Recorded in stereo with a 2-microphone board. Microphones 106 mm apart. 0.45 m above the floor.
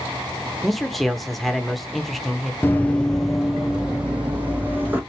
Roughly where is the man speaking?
Centre.